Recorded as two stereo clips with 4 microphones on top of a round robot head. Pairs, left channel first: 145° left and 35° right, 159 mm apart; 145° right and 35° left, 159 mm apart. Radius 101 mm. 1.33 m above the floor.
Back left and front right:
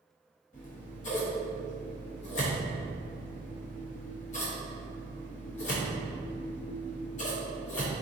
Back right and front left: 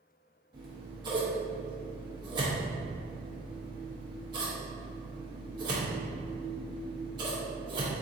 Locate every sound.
0.5 s scissors: 100° left, 0.8 m